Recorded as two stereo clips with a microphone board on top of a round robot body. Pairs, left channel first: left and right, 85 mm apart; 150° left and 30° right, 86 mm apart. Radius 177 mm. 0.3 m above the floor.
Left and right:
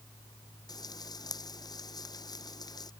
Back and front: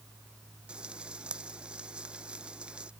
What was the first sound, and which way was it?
Frying, 50° left.